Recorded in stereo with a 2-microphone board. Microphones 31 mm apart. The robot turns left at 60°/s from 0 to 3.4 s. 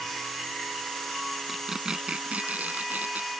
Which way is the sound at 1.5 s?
5° right.